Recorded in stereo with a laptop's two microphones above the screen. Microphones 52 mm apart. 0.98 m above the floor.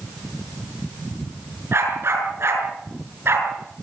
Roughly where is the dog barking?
Right.